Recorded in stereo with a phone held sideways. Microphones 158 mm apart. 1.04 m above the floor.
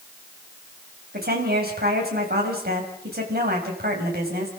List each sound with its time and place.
1.1 s a woman speaking: 80° right, 6 m